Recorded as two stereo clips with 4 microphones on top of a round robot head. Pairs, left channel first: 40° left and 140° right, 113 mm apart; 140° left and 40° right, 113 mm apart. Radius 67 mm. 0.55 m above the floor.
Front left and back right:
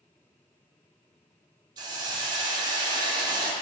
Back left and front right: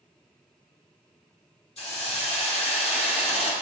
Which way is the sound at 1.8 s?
170° left.